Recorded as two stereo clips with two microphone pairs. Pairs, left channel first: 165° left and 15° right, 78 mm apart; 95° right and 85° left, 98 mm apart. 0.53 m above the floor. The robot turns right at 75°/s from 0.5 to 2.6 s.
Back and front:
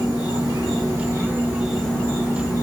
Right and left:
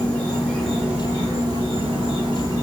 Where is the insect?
20° right, 1.0 m; by 2.6 s 135° left, 1.0 m.